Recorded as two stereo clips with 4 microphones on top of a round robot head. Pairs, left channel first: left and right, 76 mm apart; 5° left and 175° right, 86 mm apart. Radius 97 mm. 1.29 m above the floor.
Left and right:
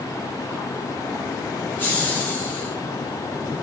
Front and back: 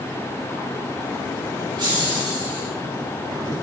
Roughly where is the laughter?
Behind left.